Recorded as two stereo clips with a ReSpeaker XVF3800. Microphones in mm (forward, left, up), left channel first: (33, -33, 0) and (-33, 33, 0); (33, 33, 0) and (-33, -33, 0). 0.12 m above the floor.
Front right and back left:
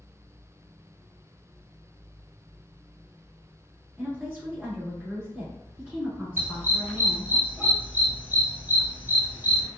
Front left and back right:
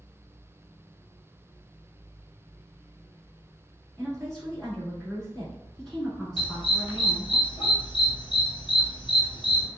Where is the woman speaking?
120° left, 1.2 m.